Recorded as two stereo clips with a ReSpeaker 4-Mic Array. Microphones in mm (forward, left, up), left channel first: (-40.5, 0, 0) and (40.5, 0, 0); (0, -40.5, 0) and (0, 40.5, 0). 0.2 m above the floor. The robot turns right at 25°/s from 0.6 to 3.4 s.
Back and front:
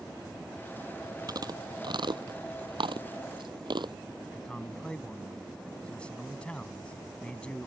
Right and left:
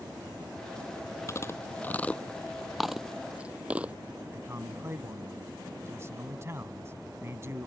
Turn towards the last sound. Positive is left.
turn(degrees=115)